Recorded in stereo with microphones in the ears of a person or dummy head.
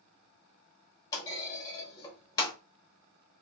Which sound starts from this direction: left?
A clunk, at 1.1 s.